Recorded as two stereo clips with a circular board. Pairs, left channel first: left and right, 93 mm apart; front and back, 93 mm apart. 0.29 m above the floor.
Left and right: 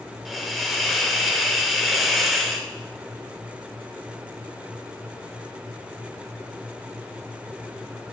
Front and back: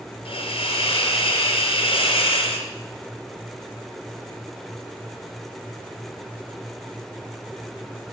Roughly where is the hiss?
Ahead.